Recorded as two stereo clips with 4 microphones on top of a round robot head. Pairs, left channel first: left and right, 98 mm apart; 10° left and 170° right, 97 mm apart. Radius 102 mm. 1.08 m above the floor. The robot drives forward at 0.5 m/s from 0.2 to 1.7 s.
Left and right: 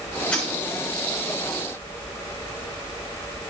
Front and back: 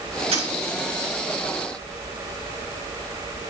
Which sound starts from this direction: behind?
A dropped coin, at 0.3 s.